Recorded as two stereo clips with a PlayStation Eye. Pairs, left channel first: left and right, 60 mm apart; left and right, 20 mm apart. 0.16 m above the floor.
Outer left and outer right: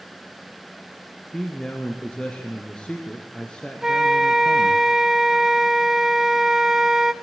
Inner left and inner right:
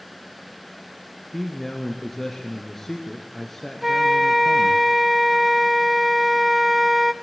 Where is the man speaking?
15° left (ahead or behind), 2 m.